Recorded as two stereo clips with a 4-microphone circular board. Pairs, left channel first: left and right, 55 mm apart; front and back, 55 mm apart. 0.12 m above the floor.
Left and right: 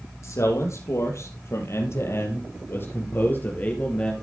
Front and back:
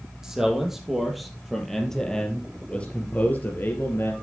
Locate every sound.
0.2 s a man speaking: 100° left, 4 m; by 4.1 s 30° left, 2.5 m